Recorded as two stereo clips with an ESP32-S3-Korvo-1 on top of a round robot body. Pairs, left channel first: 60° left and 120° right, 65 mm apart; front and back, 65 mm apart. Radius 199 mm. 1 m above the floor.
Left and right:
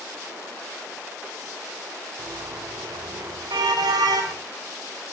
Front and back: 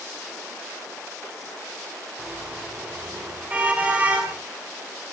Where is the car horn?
105° right, 5 m; by 4.4 s 115° right, 6 m.